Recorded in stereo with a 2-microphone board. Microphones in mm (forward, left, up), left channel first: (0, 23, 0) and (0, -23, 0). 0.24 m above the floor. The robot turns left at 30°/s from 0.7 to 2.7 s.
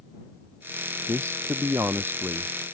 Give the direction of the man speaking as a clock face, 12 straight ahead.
3 o'clock.